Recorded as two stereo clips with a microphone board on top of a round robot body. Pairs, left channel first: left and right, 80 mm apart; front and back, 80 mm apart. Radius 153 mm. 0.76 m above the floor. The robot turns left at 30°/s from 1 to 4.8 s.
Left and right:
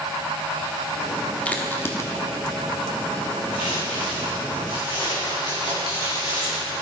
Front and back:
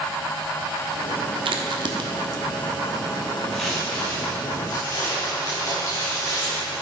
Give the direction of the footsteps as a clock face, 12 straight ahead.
9 o'clock.